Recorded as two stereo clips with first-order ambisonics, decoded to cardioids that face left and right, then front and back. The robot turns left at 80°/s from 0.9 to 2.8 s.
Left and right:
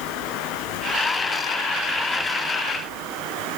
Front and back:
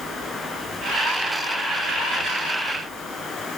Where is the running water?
75° left, 6.5 m; by 3.6 s 75° right, 6.5 m.